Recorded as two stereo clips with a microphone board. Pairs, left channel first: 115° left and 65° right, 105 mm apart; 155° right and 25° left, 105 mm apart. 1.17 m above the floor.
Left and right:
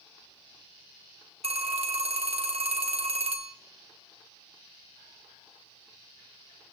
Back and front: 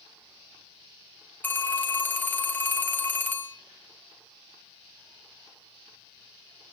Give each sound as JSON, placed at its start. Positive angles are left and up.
{"t": 1.4, "sound": "a phone ringing", "azimuth_deg": -85, "distance_m": 0.9}